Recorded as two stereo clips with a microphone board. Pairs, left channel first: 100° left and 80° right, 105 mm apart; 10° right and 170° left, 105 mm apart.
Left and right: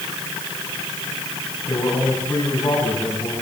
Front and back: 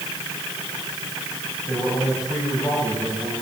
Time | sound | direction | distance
1.7 | a man speaking | 60° left | 6.5 m